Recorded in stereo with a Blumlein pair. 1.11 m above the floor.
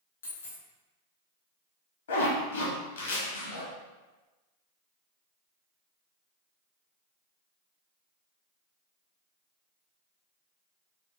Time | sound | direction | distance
0.2 | a dropped coin | 65° left | 1.6 m
2.1 | a zipper | 65° left | 1.3 m